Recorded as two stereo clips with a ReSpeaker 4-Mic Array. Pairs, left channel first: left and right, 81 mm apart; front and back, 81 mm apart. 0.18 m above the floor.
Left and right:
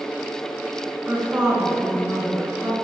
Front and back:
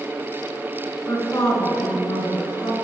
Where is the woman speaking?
25° right, 2 m; by 2.7 s 15° right, 3 m.